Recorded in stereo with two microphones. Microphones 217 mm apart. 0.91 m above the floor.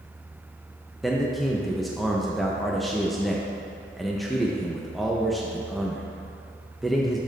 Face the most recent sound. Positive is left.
turn(degrees=0)  # may be behind; listen again after turning